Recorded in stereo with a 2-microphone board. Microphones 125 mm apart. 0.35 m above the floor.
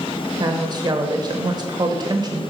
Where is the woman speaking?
35° right (ahead or behind), 0.9 m.